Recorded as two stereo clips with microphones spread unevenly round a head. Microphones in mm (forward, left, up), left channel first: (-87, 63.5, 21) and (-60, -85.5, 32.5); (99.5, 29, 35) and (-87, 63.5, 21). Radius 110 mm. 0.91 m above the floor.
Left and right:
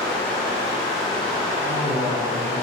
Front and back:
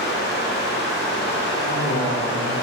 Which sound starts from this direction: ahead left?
Running water, at 0.0 s.